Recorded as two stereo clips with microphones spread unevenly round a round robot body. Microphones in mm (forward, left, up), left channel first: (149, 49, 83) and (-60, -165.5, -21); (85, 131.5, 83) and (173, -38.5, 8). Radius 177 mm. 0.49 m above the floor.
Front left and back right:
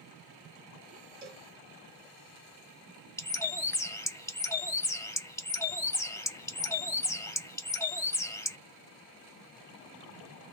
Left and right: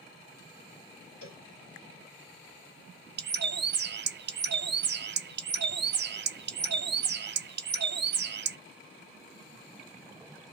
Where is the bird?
45° right, 0.6 m.